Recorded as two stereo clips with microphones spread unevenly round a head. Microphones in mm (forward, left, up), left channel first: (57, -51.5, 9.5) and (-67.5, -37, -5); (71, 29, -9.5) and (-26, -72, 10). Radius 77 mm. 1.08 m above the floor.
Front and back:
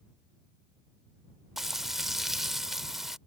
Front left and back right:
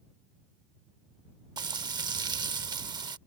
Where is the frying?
95° right.